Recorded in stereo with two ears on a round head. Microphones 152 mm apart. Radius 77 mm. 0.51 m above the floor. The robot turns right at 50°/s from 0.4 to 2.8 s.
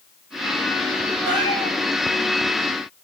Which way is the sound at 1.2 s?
25° right (ahead or behind).